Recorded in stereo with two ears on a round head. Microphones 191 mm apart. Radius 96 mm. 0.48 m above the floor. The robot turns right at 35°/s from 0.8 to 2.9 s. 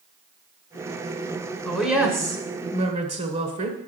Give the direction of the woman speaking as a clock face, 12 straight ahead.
6 o'clock.